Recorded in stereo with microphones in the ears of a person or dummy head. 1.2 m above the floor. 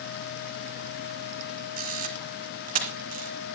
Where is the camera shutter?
40° right (ahead or behind), 2.5 m.